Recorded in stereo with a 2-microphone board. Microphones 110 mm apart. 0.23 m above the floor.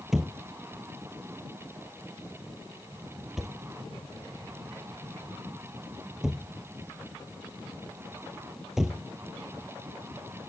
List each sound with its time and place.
0.1 s a thud: 5° right (ahead or behind)